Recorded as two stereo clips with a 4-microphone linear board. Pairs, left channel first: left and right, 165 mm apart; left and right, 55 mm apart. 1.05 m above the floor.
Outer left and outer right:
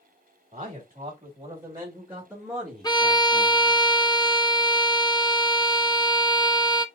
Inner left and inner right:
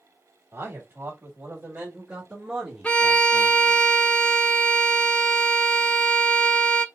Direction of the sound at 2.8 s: 25° left (ahead or behind).